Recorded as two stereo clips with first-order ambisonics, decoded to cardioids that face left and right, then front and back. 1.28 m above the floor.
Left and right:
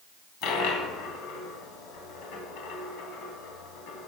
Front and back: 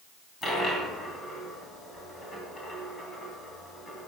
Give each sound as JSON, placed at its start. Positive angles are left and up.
{"t": 0.4, "sound": "a dropped coin", "azimuth_deg": 75, "distance_m": 2.5}